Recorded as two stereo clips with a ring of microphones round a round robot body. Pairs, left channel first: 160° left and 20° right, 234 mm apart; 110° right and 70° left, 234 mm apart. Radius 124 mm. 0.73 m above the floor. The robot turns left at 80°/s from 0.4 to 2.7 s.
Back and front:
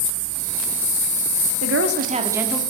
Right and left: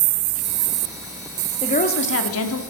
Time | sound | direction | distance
1.6 | a woman speaking | 40° right | 1.6 m